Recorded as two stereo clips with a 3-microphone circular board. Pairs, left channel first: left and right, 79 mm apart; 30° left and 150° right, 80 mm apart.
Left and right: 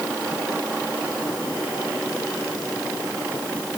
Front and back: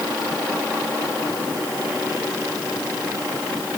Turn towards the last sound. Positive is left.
No sound to turn to.